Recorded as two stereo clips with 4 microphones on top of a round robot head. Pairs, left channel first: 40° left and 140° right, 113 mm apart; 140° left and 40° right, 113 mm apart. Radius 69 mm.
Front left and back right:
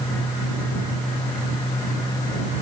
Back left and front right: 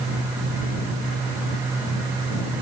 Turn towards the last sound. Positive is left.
No sound to turn to.